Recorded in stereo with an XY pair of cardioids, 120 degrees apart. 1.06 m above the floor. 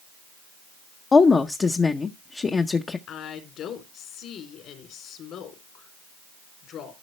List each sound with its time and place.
1.1 s a woman speaking: 30° left, 0.7 m
3.1 s a woman speaking: 65° left, 3 m